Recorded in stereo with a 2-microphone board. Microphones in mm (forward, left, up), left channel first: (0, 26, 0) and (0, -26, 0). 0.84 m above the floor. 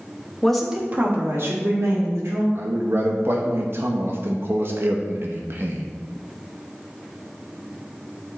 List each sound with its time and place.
0.4 s a woman speaking: 15° left (ahead or behind), 1.0 m; by 2.5 s 70° right (ahead or behind), 3 m
2.5 s a man speaking: 45° right (ahead or behind), 0.7 m